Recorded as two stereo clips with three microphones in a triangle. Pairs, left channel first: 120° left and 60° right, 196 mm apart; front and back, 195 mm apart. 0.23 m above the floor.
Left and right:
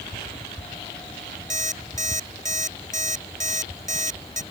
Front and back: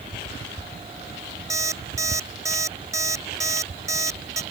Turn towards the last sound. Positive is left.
turn(degrees=-105)